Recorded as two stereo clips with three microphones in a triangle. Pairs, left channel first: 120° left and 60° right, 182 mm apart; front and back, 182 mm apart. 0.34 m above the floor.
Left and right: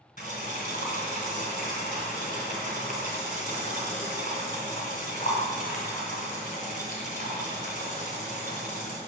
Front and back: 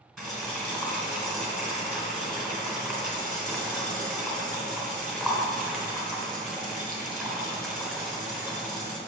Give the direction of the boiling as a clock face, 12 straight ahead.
9 o'clock.